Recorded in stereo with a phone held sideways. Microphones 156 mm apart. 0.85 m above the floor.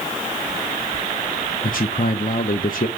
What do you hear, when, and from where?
1.6 s a man speaking: 65° left (ahead or behind), 0.8 m